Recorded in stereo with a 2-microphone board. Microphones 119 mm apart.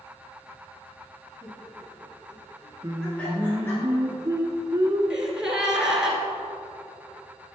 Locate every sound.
1.4 s laughter: 25° right (ahead or behind), 1.6 m; by 3.8 s 20° left (ahead or behind), 1.9 m
2.8 s singing: 30° right (ahead or behind), 0.6 m
5.1 s a gasp: 5° right (ahead or behind), 1.0 m